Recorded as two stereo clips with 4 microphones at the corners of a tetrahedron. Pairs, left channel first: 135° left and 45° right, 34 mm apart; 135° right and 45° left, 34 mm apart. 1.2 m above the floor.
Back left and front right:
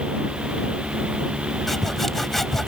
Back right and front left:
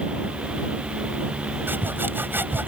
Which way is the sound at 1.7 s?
50° left.